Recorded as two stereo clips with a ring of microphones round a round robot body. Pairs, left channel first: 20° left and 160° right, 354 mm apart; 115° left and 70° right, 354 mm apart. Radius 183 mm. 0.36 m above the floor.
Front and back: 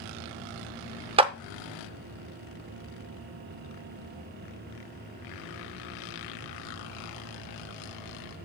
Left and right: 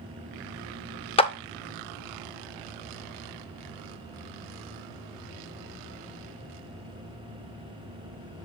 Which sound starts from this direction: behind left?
A clap, at 1.2 s.